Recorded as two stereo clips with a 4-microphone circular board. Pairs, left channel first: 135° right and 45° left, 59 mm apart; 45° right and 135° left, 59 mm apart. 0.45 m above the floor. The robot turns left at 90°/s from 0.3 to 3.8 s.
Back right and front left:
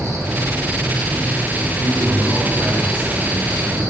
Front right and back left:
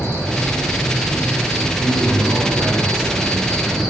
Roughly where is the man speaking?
Behind.